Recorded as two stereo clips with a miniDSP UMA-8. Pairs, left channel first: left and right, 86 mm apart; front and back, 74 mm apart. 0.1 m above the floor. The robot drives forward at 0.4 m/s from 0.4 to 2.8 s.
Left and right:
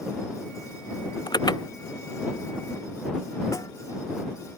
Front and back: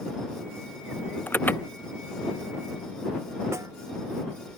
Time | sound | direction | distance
1.3 | an alarm | 65° left | ?
3.5 | a snare drum | 135° left | ?